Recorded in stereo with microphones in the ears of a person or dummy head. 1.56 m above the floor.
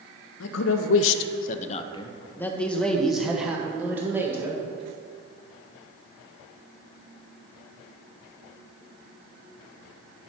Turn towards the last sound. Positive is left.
turn(degrees=-10)  # may be behind; listen again after turning